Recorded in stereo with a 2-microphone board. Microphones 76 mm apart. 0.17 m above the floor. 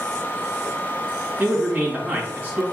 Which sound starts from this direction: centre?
A man speaking, at 1.4 s.